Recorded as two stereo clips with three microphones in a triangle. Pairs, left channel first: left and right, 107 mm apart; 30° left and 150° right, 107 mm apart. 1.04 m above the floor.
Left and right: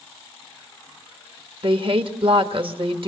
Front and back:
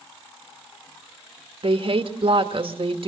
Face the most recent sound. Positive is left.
turn(degrees=-120)